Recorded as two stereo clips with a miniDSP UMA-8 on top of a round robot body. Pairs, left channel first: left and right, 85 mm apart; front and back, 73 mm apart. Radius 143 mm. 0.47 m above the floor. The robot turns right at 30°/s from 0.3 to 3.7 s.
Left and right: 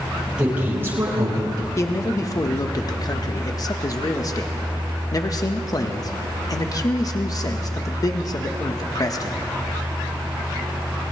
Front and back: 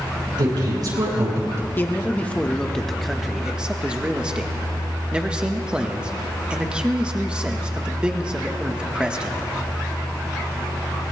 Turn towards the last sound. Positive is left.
turn(degrees=110)